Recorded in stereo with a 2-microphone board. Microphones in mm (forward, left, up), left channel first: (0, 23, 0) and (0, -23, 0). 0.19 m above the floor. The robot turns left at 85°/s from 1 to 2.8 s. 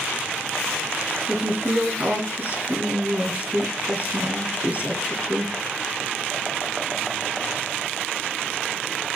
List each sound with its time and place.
1.3 s a woman speaking: 5° right, 2.5 m; by 5.5 s 135° right, 2.5 m